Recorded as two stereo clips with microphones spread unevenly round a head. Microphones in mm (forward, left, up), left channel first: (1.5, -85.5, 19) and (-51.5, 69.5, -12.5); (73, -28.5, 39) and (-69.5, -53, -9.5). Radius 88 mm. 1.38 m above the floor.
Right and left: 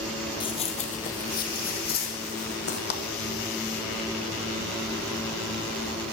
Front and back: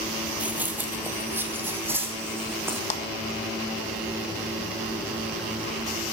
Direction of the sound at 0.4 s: 70° right.